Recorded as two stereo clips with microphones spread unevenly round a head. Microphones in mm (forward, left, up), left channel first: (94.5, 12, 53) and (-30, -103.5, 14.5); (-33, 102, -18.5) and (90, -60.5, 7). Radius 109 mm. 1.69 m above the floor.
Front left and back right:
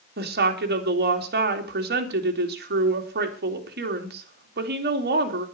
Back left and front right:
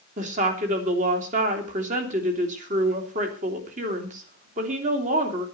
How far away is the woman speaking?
About 3 m.